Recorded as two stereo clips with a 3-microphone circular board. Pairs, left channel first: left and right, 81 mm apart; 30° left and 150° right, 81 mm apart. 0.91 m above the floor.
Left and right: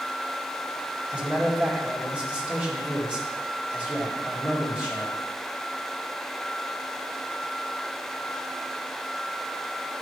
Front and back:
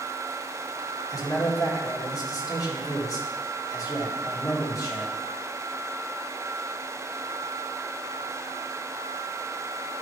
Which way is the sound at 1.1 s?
15° right.